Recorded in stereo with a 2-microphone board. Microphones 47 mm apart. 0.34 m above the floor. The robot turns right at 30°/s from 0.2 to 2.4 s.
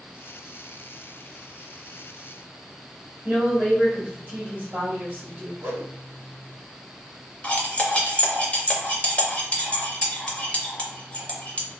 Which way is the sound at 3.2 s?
20° right (ahead or behind).